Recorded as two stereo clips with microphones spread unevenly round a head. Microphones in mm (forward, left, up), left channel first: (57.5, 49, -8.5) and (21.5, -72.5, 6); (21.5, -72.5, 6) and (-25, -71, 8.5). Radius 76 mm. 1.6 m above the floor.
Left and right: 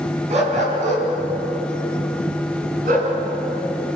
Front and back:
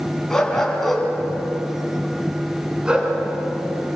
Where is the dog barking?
80° right, 5.5 m; by 3.1 s 115° right, 6 m.